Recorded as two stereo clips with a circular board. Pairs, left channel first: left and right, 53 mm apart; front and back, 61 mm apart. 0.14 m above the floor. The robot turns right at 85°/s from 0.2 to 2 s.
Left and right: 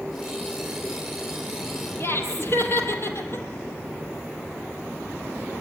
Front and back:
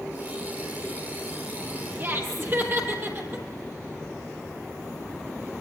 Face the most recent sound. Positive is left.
turn(degrees=130)